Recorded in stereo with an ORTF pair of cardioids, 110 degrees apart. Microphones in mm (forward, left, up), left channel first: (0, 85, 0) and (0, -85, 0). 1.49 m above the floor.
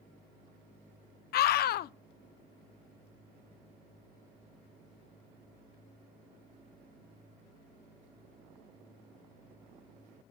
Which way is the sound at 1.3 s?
60° left.